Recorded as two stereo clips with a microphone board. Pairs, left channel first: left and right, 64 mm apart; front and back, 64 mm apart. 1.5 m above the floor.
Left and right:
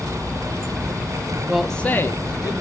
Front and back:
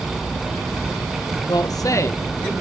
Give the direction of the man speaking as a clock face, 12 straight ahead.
1 o'clock.